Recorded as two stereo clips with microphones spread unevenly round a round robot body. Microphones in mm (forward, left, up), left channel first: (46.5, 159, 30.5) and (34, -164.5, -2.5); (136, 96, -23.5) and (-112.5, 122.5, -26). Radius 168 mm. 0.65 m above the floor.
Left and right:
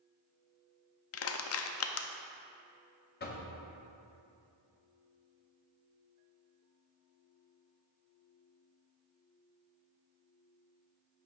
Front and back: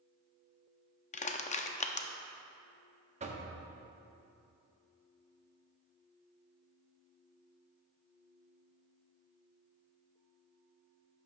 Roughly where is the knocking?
Behind left.